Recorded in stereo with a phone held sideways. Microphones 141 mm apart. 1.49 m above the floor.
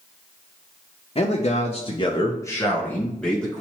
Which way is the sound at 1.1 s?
45° left (ahead or behind).